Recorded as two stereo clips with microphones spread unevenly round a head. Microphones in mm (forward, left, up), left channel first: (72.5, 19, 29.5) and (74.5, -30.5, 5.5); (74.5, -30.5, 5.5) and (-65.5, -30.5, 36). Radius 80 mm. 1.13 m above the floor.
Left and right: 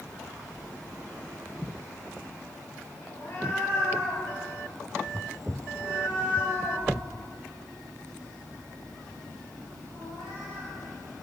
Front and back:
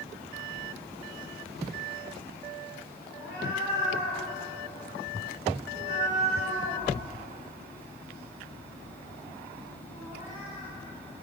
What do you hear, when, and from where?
3.1 s a cat meowing: 110° left, 2 m; by 10.7 s 110° right, 4.5 m